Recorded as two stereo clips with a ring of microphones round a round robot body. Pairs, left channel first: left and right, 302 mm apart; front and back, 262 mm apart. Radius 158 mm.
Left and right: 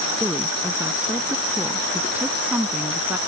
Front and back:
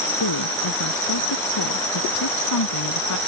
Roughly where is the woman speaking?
Ahead.